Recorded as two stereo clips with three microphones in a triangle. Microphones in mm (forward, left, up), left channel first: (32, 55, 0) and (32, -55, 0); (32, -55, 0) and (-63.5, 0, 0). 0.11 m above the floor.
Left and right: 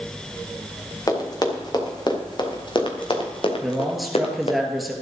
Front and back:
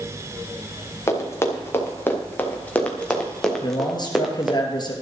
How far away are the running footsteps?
About 4 m.